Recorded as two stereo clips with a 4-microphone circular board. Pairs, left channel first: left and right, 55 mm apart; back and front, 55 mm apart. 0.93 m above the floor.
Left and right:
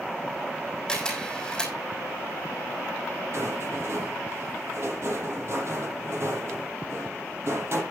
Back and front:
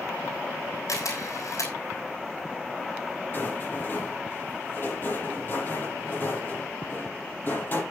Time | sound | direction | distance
0.9 | a camera shutter | 165° left | 7 m
3.3 | a rattle | 130° right | 7.5 m